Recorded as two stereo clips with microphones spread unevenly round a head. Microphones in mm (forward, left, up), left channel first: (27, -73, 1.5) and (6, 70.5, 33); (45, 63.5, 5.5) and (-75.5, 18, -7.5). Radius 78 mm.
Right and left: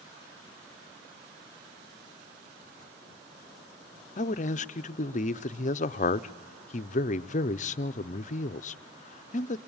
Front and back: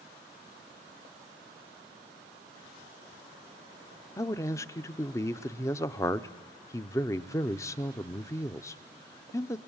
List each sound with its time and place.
4.2 s a man speaking: 40° right, 0.5 m